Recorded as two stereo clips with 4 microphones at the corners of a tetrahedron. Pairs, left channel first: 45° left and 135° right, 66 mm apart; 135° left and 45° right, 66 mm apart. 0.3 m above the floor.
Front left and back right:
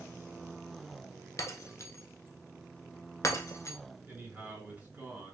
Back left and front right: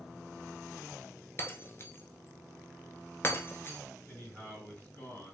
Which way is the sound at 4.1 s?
175° left.